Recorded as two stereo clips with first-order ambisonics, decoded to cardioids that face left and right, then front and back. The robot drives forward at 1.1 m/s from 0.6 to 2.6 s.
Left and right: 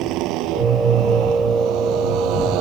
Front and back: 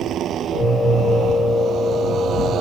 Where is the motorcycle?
125° right; by 2.6 s 120° right.